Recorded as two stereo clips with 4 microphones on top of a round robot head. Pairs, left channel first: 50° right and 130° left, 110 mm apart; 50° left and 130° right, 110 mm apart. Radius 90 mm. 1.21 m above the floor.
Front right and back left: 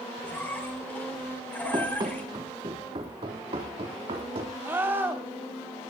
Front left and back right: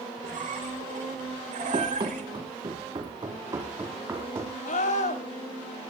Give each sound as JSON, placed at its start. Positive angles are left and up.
{"t": 0.2, "sound": "a squeak", "azimuth_deg": -125, "distance_m": 3.0}
{"t": 1.7, "sound": "running footsteps", "azimuth_deg": -175, "distance_m": 3.0}
{"t": 4.7, "sound": "a scream", "azimuth_deg": 55, "distance_m": 3.5}